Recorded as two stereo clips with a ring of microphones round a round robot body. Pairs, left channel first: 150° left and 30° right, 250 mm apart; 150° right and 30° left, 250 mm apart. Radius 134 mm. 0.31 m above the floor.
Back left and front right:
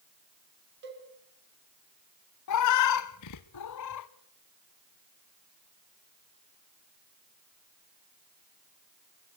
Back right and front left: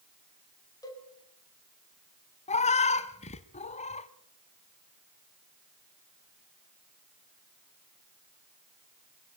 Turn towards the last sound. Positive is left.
turn(degrees=145)